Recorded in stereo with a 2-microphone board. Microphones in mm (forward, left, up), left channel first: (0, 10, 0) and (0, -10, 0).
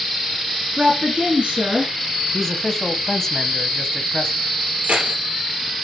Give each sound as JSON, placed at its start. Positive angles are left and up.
{"t": 0.8, "sound": "a woman speaking", "side_deg": -60, "distance_m": 2.5}
{"t": 2.3, "sound": "a man speaking", "side_deg": 20, "distance_m": 1.1}
{"t": 4.8, "sound": "keys jangling", "side_deg": -75, "distance_m": 3.0}